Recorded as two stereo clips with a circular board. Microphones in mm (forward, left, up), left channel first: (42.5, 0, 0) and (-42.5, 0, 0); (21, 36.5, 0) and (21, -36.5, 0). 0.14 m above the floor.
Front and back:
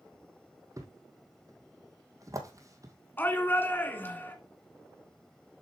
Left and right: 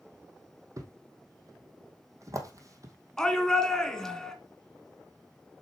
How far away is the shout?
About 1.5 m.